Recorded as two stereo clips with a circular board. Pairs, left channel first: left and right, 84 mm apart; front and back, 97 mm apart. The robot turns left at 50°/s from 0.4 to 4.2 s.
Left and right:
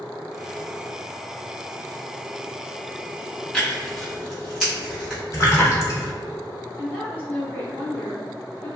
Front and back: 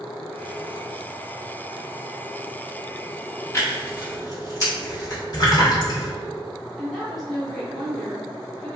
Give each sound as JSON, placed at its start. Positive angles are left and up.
{"t": 3.5, "sound": "tearing paper", "azimuth_deg": 25, "distance_m": 1.4}
{"t": 5.3, "sound": "a splash", "azimuth_deg": 40, "distance_m": 0.9}
{"t": 6.8, "sound": "a woman speaking", "azimuth_deg": 85, "distance_m": 1.0}